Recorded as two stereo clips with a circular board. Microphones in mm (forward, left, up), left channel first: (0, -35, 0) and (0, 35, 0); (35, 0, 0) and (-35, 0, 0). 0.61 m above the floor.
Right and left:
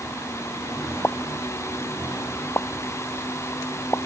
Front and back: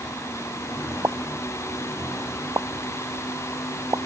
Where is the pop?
145° right.